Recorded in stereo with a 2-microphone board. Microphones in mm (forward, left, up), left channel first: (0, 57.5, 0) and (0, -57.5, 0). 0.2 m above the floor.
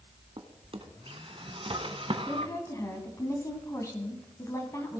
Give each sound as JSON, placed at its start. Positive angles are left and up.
{"t": 0.4, "sound": "a drawer", "side_deg": -50, "distance_m": 0.9}
{"t": 2.3, "sound": "a woman speaking", "side_deg": 25, "distance_m": 1.7}